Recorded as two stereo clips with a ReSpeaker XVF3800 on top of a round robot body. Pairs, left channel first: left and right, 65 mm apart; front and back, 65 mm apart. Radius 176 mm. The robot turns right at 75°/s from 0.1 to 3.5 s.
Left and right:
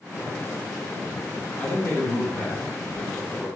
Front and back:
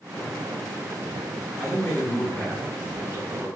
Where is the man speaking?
30° left, 1.8 m; by 3.5 s 170° left, 1.8 m.